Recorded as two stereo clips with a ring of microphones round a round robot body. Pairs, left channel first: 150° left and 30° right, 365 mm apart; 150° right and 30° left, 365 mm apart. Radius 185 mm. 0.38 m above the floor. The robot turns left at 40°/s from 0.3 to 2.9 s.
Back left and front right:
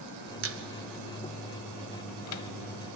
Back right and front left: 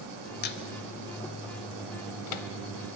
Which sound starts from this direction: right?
A squeak, at 0.4 s.